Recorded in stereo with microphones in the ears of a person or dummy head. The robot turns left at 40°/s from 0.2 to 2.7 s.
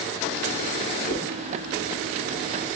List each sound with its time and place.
1.1 s a whoosh: 25° left (ahead or behind), 2 m; by 1.4 s 30° left (ahead or behind), 2 m